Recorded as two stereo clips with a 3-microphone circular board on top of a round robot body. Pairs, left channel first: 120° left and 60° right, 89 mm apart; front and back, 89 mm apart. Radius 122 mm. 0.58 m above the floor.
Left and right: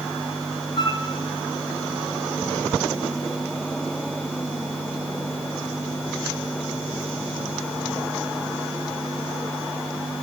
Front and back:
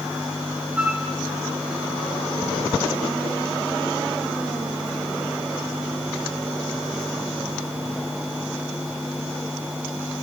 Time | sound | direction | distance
0.8 | a flute | 105° left | 2.0 m